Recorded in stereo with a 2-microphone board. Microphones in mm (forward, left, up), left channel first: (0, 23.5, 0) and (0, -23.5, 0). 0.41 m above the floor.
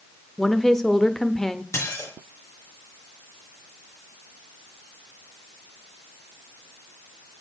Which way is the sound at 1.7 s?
80° left.